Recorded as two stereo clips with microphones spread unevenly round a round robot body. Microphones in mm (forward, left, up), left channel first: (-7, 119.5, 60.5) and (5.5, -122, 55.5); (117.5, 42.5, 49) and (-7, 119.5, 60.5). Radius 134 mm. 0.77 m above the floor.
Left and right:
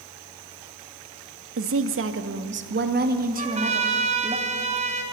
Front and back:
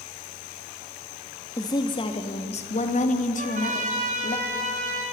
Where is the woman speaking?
95° right, 1.4 m; by 4.4 s 20° right, 2 m.